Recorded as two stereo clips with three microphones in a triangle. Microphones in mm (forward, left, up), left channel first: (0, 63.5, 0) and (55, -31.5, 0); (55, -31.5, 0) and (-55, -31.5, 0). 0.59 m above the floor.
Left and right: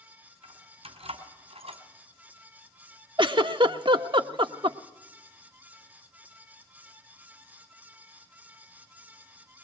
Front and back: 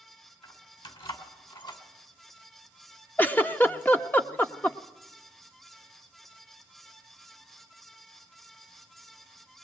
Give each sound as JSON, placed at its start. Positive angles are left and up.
{"t": 0.4, "sound": "keys jangling", "azimuth_deg": -35, "distance_m": 3.5}
{"t": 3.2, "sound": "a giggle", "azimuth_deg": -65, "distance_m": 1.0}